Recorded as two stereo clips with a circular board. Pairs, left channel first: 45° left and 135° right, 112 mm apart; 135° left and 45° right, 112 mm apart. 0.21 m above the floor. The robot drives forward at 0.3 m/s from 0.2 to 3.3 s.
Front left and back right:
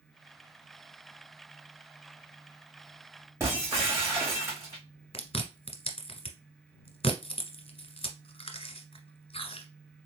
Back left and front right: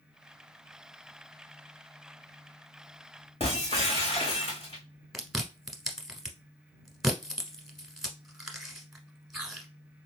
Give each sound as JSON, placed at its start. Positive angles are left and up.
{"t": 3.4, "sound": "breaking glass", "azimuth_deg": 160, "distance_m": 3.0}
{"t": 5.1, "sound": "chewing", "azimuth_deg": 40, "distance_m": 1.1}